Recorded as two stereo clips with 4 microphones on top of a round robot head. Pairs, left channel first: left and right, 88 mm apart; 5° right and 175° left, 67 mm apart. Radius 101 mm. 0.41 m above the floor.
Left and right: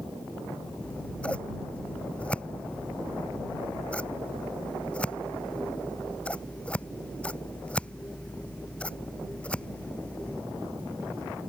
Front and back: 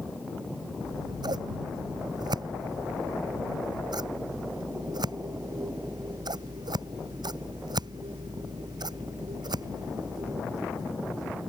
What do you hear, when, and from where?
0.8 s scissors: 165° left